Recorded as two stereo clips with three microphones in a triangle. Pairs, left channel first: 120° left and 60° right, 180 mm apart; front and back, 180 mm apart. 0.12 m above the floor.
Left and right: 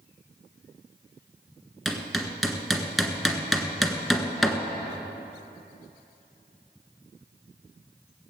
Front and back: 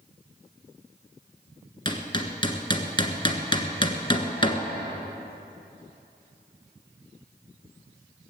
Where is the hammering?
30° left, 1.3 m.